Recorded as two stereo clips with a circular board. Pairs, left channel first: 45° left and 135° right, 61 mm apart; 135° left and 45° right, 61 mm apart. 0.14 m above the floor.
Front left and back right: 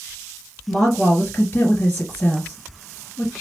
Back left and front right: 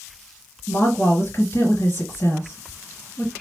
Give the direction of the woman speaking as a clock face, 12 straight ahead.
8 o'clock.